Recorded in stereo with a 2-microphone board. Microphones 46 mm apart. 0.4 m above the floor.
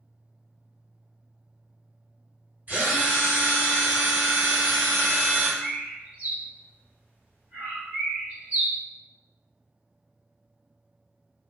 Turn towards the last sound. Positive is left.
turn(degrees=-35)  # may be behind; listen again after turning